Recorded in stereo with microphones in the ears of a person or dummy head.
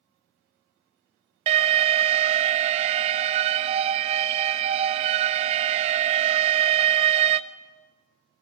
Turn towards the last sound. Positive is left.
turn(degrees=-40)  # may be behind; listen again after turning